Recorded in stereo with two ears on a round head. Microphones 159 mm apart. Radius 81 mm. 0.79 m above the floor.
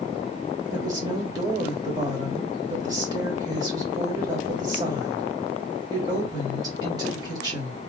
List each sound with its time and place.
0.7 s a woman speaking: 25° right (ahead or behind), 1.8 m